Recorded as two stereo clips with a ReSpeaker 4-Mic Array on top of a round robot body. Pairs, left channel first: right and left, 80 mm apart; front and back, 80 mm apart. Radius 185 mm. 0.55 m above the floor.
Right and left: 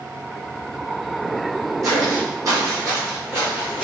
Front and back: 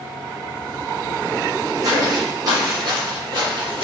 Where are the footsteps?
135° left, 1.7 m; by 3.9 s 170° left, 0.6 m.